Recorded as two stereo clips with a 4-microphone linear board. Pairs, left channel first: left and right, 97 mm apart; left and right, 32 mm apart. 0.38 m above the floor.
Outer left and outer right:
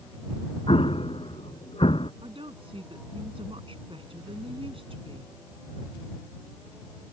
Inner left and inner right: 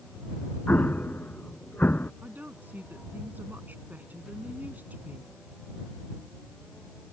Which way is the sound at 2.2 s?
75° right (ahead or behind).